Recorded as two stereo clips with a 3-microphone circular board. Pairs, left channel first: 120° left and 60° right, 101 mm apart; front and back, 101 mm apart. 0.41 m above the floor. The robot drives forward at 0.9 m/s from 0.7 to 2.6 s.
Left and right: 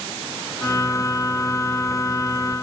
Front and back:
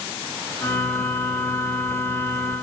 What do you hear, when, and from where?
Only background noise.